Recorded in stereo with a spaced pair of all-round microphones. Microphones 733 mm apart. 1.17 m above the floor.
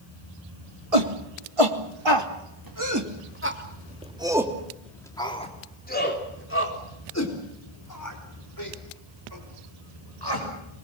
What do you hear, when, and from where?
0.9 s a shout: 55° right (ahead or behind), 3 m; by 10.4 s 35° left (ahead or behind), 6.5 m